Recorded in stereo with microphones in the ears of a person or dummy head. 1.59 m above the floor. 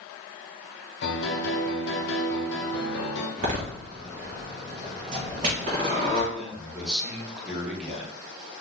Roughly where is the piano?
Left.